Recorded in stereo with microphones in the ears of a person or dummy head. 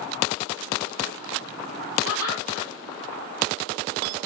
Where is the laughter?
80° left, 2.5 m.